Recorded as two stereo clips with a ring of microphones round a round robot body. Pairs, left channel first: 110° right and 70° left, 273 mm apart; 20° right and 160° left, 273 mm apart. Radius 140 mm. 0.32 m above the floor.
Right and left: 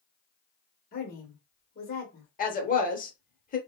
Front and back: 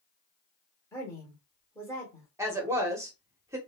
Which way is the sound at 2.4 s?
130° right.